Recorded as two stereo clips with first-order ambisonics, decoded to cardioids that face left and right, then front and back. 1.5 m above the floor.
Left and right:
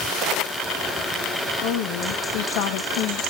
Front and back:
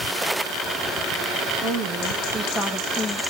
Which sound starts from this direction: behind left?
A woman speaking, at 1.6 s.